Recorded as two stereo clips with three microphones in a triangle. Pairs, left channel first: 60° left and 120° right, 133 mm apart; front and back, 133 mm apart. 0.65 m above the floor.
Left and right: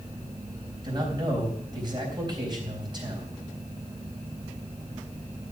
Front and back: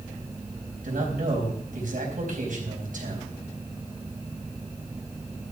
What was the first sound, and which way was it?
A man speaking, straight behind.